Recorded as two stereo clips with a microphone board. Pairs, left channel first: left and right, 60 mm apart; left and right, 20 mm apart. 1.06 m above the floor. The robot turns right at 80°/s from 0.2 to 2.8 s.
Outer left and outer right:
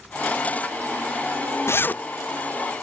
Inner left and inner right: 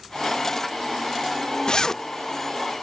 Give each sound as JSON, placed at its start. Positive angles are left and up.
{"t": 1.7, "sound": "a zipper", "side_deg": 45, "distance_m": 0.5}